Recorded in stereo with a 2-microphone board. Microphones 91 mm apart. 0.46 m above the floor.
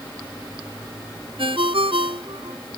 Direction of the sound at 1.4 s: 75° right (ahead or behind).